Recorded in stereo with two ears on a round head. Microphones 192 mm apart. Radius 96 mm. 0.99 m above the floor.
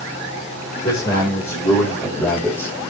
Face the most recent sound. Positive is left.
turn(degrees=10)  # may be behind; listen again after turning